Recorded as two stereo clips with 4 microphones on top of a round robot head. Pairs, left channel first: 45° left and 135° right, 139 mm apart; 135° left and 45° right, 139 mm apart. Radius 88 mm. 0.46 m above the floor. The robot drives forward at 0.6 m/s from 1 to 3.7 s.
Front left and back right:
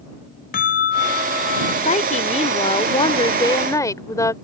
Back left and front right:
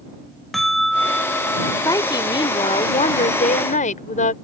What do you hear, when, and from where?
0.5 s a bell: 45° left; by 1.8 s 65° left
1.9 s a woman speaking: 70° left; by 4.3 s 110° left